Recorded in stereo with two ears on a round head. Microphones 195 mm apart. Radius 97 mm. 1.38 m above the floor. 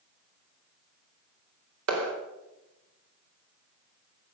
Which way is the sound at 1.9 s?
75° right (ahead or behind).